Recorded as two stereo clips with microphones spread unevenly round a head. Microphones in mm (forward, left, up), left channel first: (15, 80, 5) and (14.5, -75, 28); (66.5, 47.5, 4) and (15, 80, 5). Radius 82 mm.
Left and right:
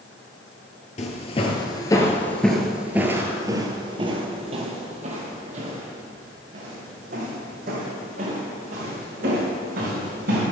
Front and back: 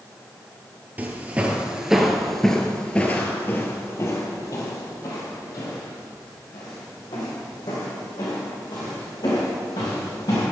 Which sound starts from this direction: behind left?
Footsteps, at 1.0 s.